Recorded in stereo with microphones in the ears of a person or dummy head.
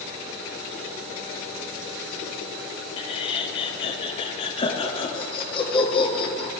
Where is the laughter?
30° left (ahead or behind), 0.7 m.